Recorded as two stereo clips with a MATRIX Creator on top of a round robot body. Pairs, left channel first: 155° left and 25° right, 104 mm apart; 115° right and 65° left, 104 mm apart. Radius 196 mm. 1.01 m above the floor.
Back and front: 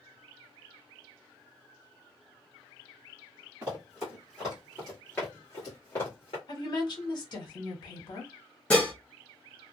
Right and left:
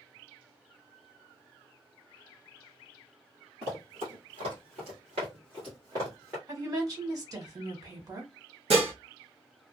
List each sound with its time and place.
3.6 s running footsteps: 50° left, 1.7 m; by 6.4 s 135° left, 1.1 m
6.5 s a woman speaking: 115° left, 1.4 m
8.7 s dishes clattering: 75° left, 0.7 m